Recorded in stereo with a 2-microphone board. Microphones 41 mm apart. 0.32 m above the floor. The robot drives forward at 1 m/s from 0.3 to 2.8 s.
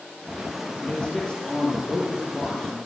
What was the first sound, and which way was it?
A man speaking, 20° left (ahead or behind).